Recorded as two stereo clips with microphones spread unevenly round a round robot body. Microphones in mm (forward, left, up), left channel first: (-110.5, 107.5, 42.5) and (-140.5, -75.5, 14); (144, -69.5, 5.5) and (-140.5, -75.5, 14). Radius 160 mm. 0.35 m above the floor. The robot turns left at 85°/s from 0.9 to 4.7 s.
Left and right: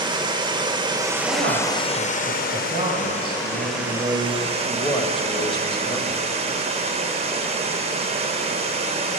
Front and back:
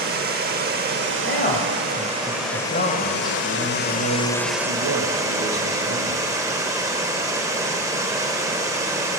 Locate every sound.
0.0 s running water: 140° right, 1.0 m; by 9.2 s 100° right, 1.0 m
1.2 s a man speaking: 30° right, 2 m; by 2.6 s 145° right, 2 m
2.7 s a man speaking: 40° right, 1.6 m; by 6.2 s 150° left, 1.6 m